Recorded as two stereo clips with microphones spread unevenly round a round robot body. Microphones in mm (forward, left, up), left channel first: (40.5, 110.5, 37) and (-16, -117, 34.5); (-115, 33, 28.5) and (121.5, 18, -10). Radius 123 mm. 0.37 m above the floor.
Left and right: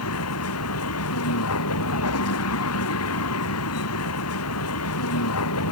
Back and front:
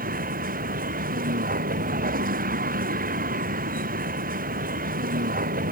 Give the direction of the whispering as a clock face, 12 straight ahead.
No whispering in this recording.